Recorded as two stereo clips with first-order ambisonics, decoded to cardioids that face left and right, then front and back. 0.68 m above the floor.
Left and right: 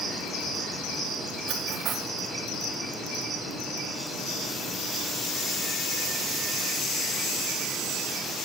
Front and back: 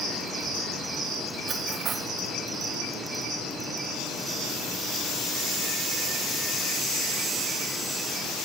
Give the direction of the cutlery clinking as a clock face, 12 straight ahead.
4 o'clock.